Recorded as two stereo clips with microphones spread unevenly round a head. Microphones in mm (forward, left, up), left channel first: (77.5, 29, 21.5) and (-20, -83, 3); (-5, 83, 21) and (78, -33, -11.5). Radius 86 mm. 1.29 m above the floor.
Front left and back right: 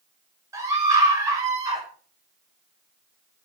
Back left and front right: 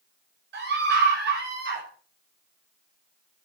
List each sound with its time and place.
0.5 s a scream: 60° right, 6.5 m